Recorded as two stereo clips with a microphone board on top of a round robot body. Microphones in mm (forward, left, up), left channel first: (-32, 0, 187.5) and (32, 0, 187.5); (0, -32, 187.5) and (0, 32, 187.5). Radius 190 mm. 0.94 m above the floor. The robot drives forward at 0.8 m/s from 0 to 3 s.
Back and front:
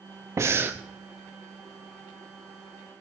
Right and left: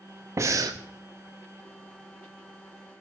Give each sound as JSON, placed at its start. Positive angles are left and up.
{"t": 0.4, "sound": "breathing", "azimuth_deg": 45, "distance_m": 0.8}